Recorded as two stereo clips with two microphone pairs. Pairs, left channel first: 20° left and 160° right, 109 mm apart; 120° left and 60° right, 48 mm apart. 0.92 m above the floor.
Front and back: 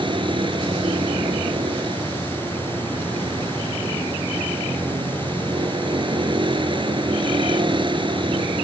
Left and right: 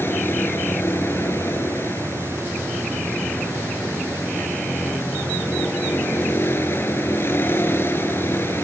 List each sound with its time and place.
0.0 s a vehicle: 155° left